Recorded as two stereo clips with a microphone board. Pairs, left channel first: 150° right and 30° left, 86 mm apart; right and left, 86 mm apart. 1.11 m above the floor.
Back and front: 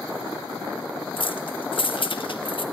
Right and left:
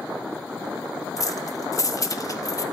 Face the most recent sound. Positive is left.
turn(degrees=-140)